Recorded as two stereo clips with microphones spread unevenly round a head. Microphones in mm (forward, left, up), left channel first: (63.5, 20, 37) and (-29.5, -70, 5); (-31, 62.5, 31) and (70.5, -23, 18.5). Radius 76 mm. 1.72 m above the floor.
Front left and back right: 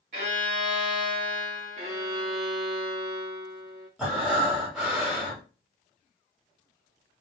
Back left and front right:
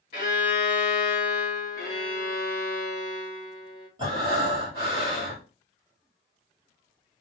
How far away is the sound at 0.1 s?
About 1.8 m.